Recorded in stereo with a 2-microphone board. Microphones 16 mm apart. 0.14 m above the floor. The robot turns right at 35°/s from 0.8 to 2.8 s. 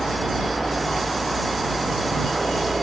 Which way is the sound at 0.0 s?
160° left.